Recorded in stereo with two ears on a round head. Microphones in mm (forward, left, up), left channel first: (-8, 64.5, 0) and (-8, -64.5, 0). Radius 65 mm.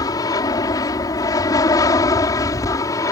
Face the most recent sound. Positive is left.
turn(degrees=25)  # may be behind; listen again after turning